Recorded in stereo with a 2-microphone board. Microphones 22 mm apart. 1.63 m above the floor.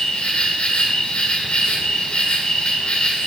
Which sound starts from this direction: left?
An insect, at 0.0 s.